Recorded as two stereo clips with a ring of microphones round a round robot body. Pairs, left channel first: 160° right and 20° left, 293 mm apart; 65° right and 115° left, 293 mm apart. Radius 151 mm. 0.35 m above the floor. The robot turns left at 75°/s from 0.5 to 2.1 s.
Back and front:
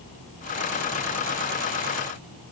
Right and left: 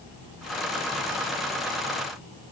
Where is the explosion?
No explosion in this recording.